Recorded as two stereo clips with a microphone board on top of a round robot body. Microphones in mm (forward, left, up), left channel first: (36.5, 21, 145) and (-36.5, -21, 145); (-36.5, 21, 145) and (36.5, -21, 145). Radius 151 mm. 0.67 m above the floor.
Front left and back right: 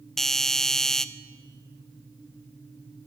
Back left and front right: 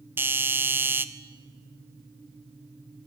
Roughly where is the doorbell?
Ahead right.